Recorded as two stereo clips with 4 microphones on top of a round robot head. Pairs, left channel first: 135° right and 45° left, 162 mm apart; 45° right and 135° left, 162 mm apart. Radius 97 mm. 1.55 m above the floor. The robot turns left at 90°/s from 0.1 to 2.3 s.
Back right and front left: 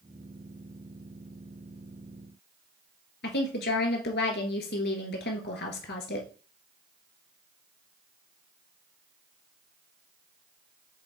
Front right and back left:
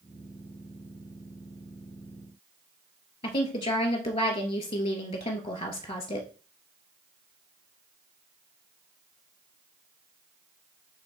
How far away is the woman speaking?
About 2.0 m.